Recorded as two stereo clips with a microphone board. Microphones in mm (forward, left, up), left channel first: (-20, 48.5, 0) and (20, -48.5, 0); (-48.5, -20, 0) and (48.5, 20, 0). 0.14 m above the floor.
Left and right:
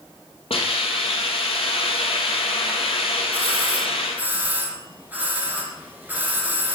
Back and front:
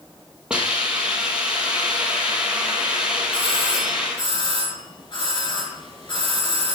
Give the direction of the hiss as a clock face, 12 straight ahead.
9 o'clock.